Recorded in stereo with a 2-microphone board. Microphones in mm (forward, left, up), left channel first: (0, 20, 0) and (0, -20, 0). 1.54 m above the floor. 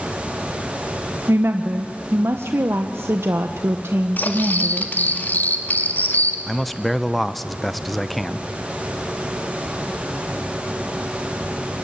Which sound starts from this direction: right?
A woman speaking, at 1.3 s.